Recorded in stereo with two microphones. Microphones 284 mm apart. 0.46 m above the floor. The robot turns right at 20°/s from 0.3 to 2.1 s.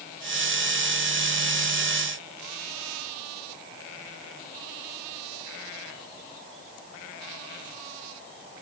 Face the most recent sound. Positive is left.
No sound to turn to.